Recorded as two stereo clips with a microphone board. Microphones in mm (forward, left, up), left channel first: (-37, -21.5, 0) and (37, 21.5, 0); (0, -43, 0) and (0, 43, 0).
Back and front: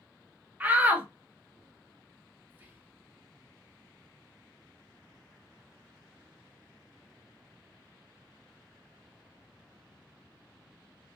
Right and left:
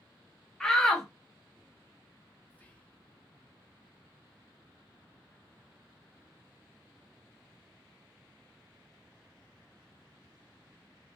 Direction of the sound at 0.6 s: 15° right.